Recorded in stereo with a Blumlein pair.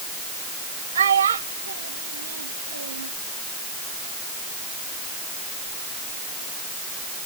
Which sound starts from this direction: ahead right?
A child speaking, at 0.9 s.